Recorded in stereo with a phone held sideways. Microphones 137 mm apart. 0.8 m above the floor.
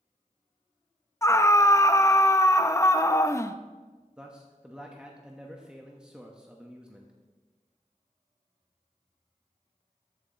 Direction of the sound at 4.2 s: 5° right (ahead or behind).